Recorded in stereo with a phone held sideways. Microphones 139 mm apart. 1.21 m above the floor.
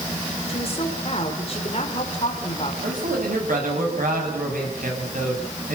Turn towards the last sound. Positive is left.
turn(degrees=-80)